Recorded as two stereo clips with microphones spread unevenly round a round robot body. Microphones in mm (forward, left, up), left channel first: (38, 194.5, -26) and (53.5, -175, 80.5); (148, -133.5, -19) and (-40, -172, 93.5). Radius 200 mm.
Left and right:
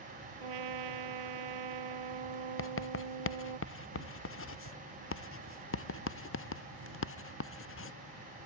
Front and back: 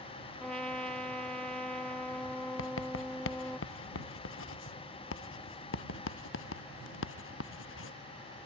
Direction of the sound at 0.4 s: 75° right.